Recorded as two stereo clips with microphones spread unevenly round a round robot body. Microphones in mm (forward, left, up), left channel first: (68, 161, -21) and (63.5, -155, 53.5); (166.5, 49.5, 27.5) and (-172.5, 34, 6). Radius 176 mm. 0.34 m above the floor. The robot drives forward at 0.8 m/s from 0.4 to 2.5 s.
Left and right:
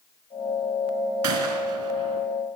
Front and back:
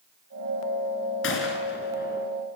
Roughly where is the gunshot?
Ahead right.